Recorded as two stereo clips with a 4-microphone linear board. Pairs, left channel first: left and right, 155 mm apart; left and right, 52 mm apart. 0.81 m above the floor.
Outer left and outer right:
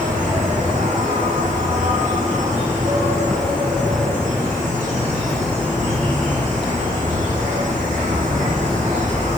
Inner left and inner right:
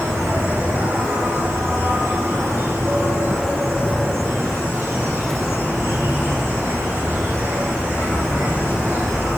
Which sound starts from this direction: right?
An insect, at 0.0 s.